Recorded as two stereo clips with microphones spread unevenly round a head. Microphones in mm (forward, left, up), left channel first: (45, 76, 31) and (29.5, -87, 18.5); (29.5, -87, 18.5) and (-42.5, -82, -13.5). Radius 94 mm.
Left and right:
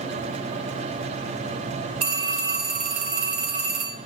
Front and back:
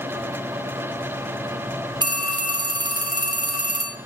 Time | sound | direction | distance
2.0 | a phone ringing | 155° right | 1.2 m